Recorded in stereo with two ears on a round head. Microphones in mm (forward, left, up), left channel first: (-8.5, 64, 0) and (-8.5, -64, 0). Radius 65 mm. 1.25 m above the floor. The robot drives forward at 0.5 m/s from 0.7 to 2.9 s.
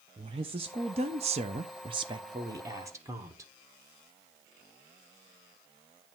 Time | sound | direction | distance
0.2 | a woman speaking | 40° right (ahead or behind) | 0.6 m